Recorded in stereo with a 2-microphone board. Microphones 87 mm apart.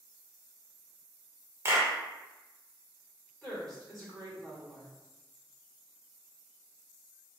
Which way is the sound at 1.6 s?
30° right (ahead or behind).